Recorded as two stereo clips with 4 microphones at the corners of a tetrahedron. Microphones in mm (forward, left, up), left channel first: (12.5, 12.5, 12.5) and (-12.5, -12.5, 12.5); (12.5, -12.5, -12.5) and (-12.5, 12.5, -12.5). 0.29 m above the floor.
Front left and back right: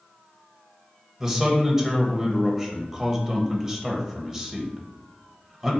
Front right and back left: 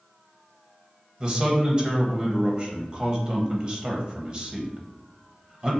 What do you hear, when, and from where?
1.2 s a man speaking: 160° left, 1.0 m